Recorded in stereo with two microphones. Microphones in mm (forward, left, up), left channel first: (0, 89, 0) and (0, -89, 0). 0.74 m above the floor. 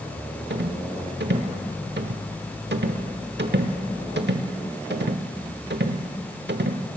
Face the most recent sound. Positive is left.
turn(degrees=-80)